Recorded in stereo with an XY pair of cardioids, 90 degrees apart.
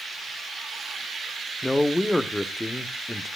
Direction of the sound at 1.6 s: 10° left.